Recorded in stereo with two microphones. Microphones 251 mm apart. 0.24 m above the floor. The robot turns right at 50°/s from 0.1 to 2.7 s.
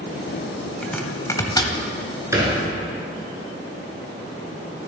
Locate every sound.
0.8 s chopping: 5° left (ahead or behind), 0.7 m; by 1.8 s 20° left (ahead or behind), 0.7 m
2.3 s a thud: 10° right (ahead or behind), 1.7 m; by 2.6 s 25° right (ahead or behind), 1.7 m